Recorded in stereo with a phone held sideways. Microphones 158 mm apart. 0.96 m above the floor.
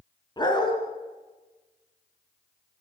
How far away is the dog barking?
About 3 m.